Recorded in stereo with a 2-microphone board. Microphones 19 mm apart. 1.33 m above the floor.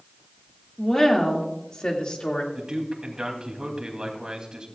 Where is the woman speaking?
25° left (ahead or behind), 2 m; by 2.4 s 50° left (ahead or behind), 2 m.